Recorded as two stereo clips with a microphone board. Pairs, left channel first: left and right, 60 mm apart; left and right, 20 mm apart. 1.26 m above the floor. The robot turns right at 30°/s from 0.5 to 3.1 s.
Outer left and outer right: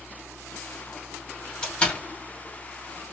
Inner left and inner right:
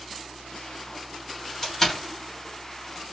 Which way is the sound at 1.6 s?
10° left (ahead or behind).